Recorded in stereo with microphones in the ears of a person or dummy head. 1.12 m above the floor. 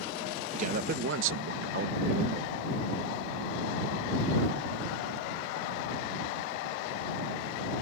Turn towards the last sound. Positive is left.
turn(degrees=-35)  # may be behind; listen again after turning